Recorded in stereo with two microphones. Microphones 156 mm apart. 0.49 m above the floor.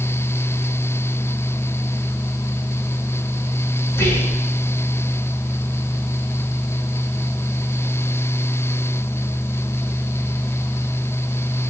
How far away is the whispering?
About 5.5 m.